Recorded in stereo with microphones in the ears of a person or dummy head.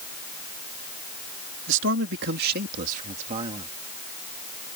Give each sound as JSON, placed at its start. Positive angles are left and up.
{"t": 1.7, "sound": "a man speaking", "side_deg": -75}